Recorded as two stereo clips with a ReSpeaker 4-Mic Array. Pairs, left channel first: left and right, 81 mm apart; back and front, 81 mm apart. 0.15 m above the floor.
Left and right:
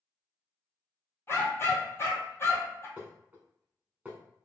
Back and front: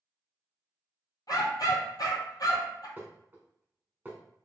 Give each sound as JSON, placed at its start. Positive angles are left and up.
{"t": 1.3, "sound": "a dog barking", "azimuth_deg": 150, "distance_m": 1.0}
{"t": 3.0, "sound": "dishes clattering", "azimuth_deg": -35, "distance_m": 0.9}